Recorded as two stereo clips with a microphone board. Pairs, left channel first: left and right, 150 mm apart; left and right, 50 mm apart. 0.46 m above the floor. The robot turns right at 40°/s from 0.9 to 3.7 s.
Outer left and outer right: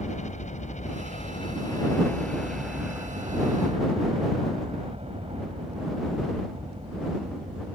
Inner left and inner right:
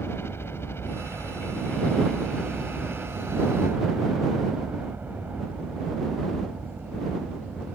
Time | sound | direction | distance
0.0 | a helicopter | 115° left | ?